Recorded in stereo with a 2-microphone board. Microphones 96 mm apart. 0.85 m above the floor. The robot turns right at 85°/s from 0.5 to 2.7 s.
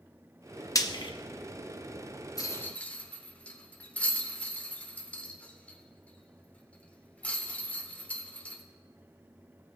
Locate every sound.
0.8 s frying: 35° left (ahead or behind), 0.7 m; by 1.1 s 60° left (ahead or behind), 0.7 m
2.4 s a rattle: 40° left (ahead or behind), 1.0 m; by 8.6 s 15° left (ahead or behind), 1.0 m